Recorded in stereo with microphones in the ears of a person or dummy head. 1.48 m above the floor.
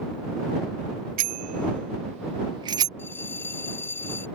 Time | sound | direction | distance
1.2 | a bicycle bell | 55° right (ahead or behind) | ?
3.0 | a bell | 15° left (ahead or behind) | ?